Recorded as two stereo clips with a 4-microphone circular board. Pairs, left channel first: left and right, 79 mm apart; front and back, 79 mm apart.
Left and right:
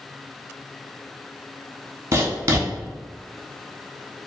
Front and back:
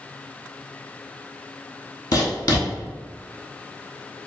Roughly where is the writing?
Ahead right.